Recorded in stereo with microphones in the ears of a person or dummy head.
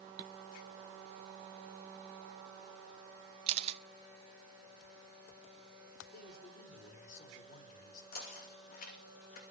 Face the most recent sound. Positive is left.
turn(degrees=50)  # may be behind; listen again after turning